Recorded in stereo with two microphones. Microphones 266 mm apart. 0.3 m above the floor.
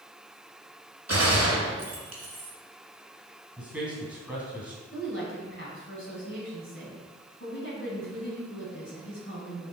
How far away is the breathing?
No breathing in this recording.